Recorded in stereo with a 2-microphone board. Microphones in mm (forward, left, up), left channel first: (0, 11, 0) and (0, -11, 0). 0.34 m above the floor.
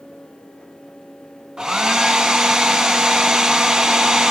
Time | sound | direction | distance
1.6 | a hair dryer | 40° right (ahead or behind) | 0.7 m